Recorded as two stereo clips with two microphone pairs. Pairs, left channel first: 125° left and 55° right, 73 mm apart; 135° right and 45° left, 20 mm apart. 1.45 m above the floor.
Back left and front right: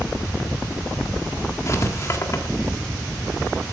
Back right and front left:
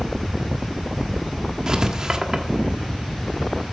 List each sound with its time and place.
1.7 s writing: 90° left, 1.4 m